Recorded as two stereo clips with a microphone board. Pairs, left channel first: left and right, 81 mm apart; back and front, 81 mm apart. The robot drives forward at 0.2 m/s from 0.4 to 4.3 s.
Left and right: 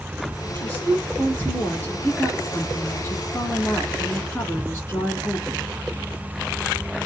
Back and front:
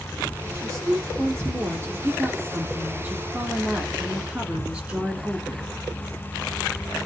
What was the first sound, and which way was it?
A woman speaking, 30° left.